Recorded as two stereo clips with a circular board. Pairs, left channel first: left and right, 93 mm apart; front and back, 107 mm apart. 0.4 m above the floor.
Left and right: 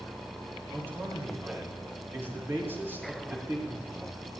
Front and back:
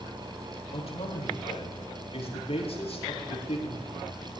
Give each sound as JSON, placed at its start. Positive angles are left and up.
{"t": 0.7, "sound": "a man speaking", "azimuth_deg": -25, "distance_m": 8.0}